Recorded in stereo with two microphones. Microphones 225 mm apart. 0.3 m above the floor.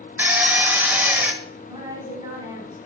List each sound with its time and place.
0.2 s a drill: 10° right (ahead or behind), 0.7 m
1.6 s a woman speaking: 20° right (ahead or behind), 3 m